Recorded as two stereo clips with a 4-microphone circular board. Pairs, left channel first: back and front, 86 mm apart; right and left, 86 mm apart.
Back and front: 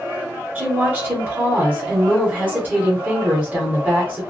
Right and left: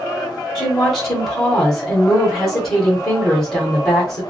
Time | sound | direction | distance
0.6 | a woman speaking | 15° right | 1.1 m